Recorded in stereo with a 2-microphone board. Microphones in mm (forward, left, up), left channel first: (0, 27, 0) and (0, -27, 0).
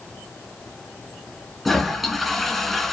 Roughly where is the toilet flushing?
Centre.